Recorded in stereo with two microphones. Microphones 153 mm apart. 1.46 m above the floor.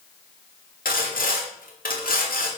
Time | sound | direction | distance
0.8 | sawing | 90° left | 2.5 m